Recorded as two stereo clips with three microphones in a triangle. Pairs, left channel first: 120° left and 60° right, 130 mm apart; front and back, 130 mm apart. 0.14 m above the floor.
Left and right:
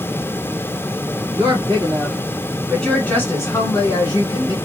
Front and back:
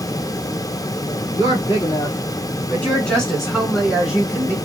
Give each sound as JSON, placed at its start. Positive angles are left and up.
{"t": 1.3, "sound": "a woman speaking", "azimuth_deg": -20, "distance_m": 1.3}